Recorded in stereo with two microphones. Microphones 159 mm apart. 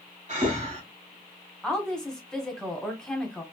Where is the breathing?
45° right (ahead or behind), 1.3 m.